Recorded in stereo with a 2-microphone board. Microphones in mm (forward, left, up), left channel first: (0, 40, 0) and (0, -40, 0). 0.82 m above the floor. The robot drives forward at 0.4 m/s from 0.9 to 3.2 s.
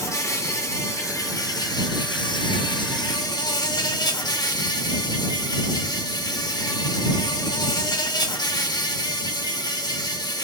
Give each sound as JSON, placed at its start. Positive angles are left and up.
{"t": 0.0, "sound": "an insect", "side_deg": 40, "distance_m": 0.8}